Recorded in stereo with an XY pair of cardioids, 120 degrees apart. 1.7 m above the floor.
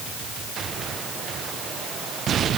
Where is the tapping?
I don't hear tapping.